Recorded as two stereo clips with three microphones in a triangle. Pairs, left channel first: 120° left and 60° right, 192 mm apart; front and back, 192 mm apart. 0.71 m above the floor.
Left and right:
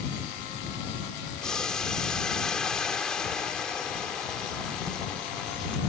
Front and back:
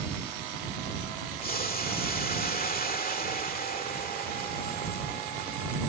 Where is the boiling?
35° left.